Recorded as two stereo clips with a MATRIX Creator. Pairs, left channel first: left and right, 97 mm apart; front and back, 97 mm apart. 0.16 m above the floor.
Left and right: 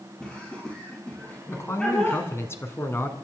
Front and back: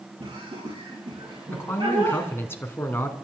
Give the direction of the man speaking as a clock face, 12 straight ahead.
10 o'clock.